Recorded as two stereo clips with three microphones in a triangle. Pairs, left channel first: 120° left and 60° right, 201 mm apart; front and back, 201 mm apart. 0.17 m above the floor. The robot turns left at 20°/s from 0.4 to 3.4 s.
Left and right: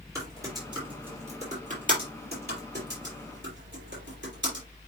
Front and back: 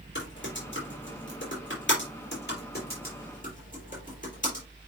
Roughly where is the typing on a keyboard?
Ahead.